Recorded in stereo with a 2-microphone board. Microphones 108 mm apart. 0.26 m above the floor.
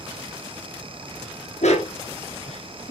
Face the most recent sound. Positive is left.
turn(degrees=70)  # may be behind; listen again after turning